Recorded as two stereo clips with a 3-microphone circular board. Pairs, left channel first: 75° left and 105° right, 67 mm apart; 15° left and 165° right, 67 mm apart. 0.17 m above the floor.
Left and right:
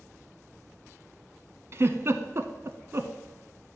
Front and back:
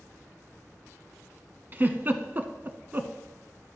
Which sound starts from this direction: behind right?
A giggle, at 1.7 s.